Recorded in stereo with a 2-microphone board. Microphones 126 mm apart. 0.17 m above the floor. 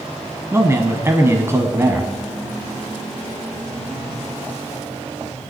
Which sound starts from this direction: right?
A man speaking, at 0.5 s.